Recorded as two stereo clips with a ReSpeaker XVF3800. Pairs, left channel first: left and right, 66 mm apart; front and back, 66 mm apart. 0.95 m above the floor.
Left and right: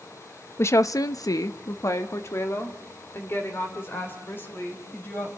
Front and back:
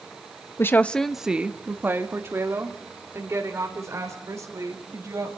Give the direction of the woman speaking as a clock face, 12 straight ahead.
11 o'clock.